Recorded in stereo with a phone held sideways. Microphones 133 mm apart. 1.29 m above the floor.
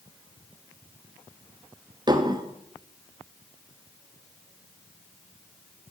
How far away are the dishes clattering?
About 1.1 m.